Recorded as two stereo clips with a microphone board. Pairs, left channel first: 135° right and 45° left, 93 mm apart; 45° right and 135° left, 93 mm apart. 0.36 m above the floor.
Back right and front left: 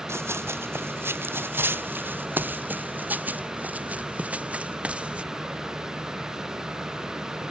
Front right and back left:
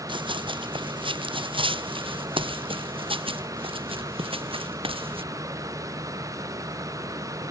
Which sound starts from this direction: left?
Running footsteps, at 0.1 s.